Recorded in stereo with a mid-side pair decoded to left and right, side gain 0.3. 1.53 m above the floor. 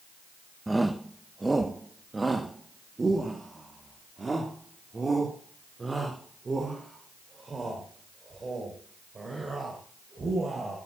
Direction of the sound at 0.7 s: 20° right.